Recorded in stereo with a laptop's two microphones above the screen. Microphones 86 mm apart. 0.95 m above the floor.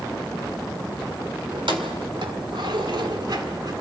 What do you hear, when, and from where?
1.5 s keys jangling: 85° right, 2.5 m; by 3.7 s 50° right (ahead or behind), 1.9 m